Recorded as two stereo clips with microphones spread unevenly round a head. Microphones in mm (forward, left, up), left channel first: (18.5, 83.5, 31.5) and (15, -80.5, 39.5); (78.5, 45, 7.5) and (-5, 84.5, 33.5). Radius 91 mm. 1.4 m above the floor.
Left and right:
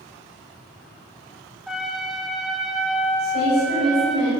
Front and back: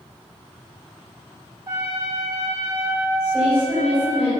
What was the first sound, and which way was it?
A trumpet, 175° right.